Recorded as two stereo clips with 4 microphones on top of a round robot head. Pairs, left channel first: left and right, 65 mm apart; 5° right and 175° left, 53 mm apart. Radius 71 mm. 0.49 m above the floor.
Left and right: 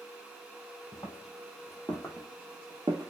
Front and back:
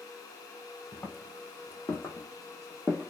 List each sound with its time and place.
0.9 s footsteps: 40° left, 1.0 m; by 3.1 s 85° right, 0.5 m